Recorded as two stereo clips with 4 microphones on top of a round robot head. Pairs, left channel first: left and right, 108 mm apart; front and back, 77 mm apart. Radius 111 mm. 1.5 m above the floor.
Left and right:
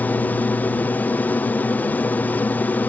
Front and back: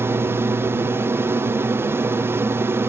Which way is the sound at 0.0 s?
150° left.